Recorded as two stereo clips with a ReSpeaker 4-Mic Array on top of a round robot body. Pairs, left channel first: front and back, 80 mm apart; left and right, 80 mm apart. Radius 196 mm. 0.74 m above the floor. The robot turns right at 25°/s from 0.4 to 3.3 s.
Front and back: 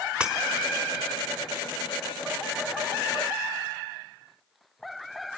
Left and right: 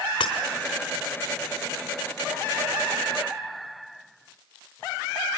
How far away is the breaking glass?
About 1.2 m.